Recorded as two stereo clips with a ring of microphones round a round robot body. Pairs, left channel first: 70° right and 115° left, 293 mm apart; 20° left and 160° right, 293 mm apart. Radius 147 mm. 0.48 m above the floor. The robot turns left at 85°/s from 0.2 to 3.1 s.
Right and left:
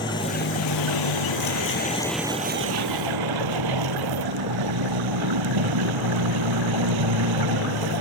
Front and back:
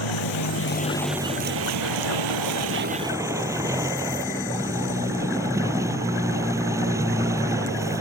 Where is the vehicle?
10° left; by 8.0 s 120° left.